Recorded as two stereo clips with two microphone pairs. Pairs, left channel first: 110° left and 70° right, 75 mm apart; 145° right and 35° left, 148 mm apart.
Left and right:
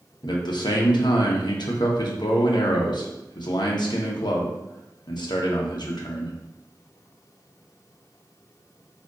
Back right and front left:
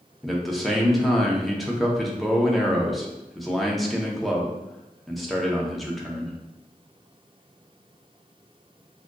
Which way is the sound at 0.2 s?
120° left.